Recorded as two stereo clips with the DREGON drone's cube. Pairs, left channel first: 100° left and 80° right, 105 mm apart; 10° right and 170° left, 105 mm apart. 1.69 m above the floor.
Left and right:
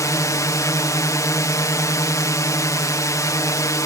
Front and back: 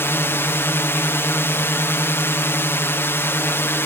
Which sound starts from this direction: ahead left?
A drone, at 0.0 s.